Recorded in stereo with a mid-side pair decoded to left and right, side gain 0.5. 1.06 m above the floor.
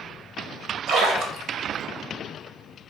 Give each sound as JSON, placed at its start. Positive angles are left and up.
{"t": 0.9, "sound": "a splash", "azimuth_deg": -70, "distance_m": 1.3}